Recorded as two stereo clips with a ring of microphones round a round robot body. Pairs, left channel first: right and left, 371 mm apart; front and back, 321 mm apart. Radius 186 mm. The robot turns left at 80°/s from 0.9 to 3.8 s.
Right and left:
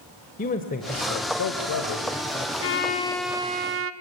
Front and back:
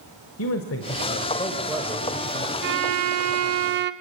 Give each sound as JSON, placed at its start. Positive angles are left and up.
{"t": 0.4, "sound": "a man speaking", "azimuth_deg": -30, "distance_m": 1.5}
{"t": 2.6, "sound": "a violin", "azimuth_deg": -130, "distance_m": 1.1}